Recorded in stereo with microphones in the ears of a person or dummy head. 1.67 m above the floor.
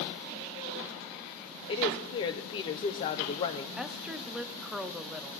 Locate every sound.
1.7 s a woman speaking: 20° left (ahead or behind), 0.6 m
3.8 s a woman speaking: 5° right (ahead or behind), 0.6 m